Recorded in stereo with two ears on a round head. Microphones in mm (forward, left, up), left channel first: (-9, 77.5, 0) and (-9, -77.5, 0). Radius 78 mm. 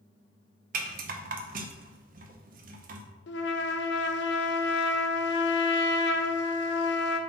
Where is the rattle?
55° right (ahead or behind), 0.8 m.